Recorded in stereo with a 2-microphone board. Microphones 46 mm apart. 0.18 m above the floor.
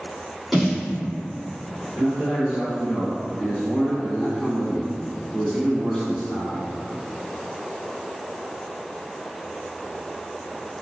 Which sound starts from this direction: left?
A man speaking, at 2.0 s.